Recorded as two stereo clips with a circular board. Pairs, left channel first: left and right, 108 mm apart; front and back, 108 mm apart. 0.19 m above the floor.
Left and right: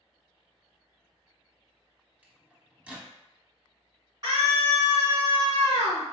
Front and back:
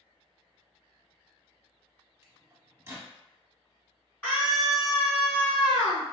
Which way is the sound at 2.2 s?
150° right.